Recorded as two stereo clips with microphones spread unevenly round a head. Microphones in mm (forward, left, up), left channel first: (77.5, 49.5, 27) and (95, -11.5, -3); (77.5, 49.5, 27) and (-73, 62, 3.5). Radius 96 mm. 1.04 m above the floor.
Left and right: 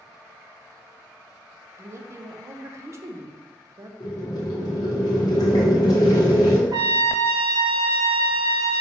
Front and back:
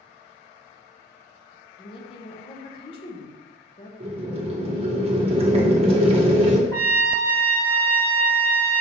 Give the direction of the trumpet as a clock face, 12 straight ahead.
3 o'clock.